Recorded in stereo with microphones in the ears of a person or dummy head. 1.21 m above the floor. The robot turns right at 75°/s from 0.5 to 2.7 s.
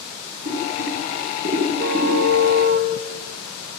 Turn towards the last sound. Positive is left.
turn(degrees=-50)